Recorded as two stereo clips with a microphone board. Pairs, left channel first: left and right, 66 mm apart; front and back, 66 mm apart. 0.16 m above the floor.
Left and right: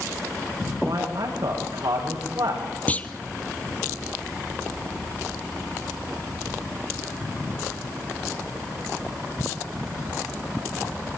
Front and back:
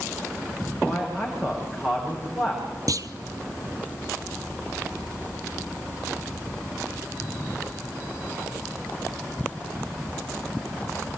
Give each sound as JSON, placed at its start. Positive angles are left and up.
{"t": 0.8, "sound": "a man speaking", "azimuth_deg": -95, "distance_m": 9.5}
{"t": 2.9, "sound": "a clunk", "azimuth_deg": 155, "distance_m": 0.9}